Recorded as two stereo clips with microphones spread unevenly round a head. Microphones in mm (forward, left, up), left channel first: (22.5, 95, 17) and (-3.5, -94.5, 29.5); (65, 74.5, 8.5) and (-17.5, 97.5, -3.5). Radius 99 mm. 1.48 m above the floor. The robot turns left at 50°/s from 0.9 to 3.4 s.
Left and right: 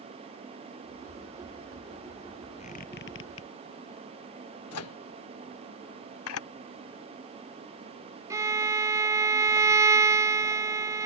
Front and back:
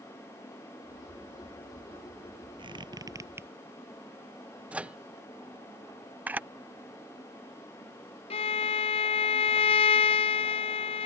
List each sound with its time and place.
2.6 s a squeak: 145° left; by 3.5 s 100° left
4.7 s a microwave: 85° left
6.3 s a camera shutter: 90° left
8.3 s a violin: 20° right